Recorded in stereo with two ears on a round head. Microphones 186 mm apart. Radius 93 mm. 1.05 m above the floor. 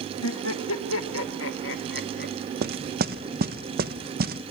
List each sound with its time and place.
0.2 s laughter: 75° left (ahead or behind), 2 m; by 2.3 s 50° left (ahead or behind), 2 m
2.6 s knocking: 45° right (ahead or behind), 0.7 m